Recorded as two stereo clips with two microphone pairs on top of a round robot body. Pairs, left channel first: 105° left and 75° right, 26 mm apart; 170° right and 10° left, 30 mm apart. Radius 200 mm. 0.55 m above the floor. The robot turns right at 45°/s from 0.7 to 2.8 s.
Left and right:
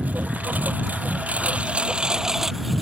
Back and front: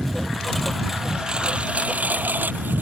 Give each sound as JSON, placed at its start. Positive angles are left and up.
{"t": 0.0, "sound": "a lawn mower", "azimuth_deg": -80}